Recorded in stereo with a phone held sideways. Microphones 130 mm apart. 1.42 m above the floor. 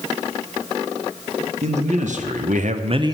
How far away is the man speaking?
About 1.6 m.